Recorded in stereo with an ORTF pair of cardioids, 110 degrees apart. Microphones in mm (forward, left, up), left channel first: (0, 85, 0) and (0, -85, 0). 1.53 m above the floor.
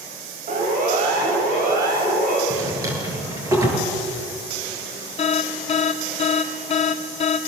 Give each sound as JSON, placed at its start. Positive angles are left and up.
{"t": 0.5, "sound": "a siren", "azimuth_deg": -50, "distance_m": 8.0}
{"t": 2.5, "sound": "a drawer", "azimuth_deg": -20, "distance_m": 8.0}
{"t": 5.2, "sound": "an alarm", "azimuth_deg": 40, "distance_m": 2.5}